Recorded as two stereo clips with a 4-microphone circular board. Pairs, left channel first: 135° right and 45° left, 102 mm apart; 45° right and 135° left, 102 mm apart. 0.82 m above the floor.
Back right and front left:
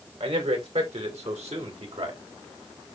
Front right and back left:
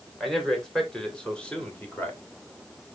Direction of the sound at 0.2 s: 45° left.